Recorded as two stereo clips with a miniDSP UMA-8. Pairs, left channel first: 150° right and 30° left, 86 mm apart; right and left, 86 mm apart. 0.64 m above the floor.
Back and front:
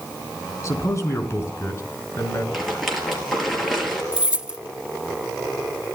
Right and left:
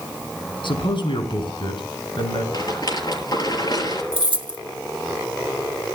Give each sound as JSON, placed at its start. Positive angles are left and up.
{"t": 0.6, "sound": "a man speaking", "azimuth_deg": -95, "distance_m": 5.5}
{"t": 2.5, "sound": "a rattle", "azimuth_deg": -60, "distance_m": 6.0}
{"t": 4.1, "sound": "keys jangling", "azimuth_deg": 110, "distance_m": 1.0}